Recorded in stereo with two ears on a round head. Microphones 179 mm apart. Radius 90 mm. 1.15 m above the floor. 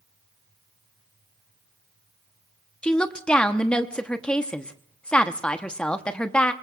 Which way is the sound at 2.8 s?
5° left (ahead or behind).